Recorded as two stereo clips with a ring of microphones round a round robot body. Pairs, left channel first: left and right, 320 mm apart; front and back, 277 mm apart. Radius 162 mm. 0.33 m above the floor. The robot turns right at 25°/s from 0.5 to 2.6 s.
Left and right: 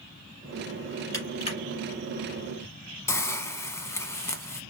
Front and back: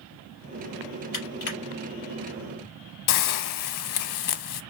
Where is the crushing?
10° left, 3 m; by 1.6 s 20° left, 3 m.